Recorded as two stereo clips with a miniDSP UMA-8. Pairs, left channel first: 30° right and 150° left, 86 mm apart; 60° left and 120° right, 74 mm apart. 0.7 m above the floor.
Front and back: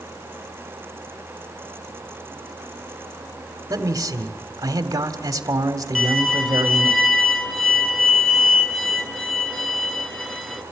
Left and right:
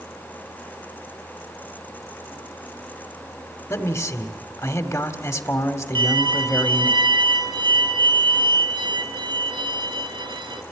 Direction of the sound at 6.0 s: 115° right.